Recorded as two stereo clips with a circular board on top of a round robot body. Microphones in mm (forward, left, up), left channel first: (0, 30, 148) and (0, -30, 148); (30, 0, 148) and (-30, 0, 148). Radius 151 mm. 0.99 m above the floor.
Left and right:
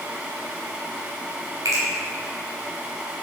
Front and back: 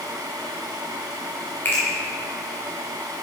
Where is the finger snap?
60° right, 3 m.